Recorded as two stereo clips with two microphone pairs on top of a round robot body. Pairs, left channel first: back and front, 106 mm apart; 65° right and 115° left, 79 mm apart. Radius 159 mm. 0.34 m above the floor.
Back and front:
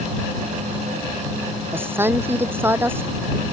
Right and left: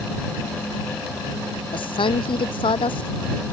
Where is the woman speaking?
70° right.